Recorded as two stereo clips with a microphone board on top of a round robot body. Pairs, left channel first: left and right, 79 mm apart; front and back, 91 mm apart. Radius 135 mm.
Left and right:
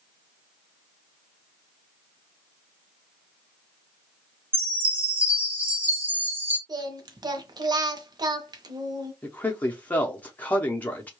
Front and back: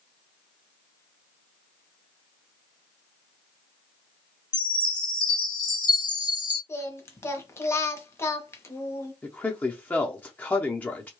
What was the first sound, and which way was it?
A chime, 30° right.